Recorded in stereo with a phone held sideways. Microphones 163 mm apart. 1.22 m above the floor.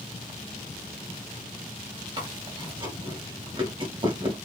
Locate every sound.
2.2 s chewing: 35° right (ahead or behind), 1.4 m